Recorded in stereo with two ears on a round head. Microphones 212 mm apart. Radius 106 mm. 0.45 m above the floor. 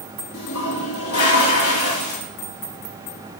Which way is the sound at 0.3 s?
70° left (ahead or behind).